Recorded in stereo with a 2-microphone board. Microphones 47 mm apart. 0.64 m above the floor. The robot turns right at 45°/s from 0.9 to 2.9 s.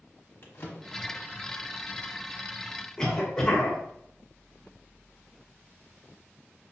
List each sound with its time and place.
0.4 s a drawer: 50° left (ahead or behind), 1.1 m; by 1.3 s 65° left (ahead or behind), 1.1 m
3.0 s a cough: 15° left (ahead or behind), 1.4 m